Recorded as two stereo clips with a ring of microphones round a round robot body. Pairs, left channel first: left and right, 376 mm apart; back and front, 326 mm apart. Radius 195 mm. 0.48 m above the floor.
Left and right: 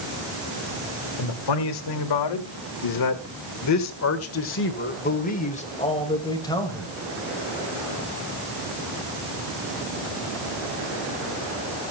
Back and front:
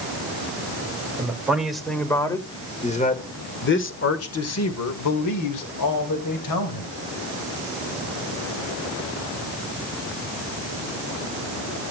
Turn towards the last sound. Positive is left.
turn(degrees=175)